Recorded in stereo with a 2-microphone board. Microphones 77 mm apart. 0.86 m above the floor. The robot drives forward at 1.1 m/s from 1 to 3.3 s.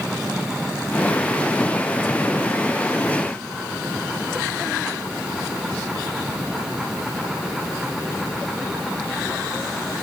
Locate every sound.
Only background noise.